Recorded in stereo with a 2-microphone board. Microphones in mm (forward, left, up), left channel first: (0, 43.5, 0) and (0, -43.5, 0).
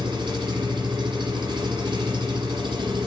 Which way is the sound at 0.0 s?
55° right (ahead or behind).